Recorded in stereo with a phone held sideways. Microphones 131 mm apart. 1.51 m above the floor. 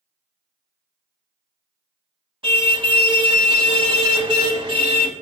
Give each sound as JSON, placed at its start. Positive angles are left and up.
{"t": 2.4, "sound": "a car horn", "side_deg": -40, "distance_m": 3.0}